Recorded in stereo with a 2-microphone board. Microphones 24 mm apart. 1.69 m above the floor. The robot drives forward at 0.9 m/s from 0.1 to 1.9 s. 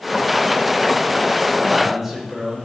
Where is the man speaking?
10° right (ahead or behind), 6 m.